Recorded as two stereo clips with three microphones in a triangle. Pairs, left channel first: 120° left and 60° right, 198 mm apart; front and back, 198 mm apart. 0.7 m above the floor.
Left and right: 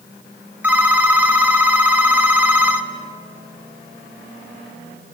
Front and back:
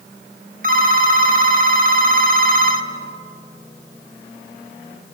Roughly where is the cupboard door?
I don't hear a cupboard door.